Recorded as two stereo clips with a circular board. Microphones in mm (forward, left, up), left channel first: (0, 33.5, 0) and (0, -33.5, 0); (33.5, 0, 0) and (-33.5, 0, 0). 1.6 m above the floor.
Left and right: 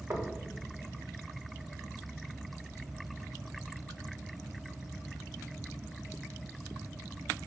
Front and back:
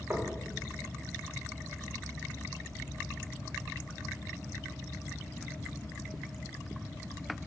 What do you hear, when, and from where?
0.1 s knocking: 130° right, 1.3 m